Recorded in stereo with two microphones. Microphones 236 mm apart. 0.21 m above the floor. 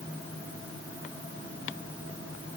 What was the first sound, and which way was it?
Only background noise.